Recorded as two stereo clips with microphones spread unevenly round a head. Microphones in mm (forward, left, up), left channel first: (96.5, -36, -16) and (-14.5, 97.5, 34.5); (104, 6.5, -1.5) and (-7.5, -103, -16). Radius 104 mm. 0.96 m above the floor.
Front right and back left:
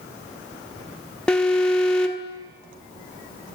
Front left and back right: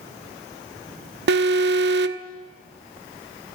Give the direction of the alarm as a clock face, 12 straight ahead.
5 o'clock.